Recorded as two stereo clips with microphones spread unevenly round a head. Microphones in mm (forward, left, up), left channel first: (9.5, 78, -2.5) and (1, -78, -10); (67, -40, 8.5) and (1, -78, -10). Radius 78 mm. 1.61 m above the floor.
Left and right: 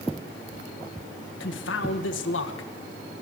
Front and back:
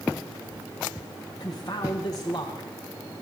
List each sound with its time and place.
1.4 s a man speaking: 95° left, 1.7 m